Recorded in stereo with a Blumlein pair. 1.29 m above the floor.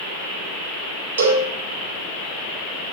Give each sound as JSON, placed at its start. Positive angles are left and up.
{"t": 1.2, "sound": "a cowbell", "azimuth_deg": -65, "distance_m": 0.6}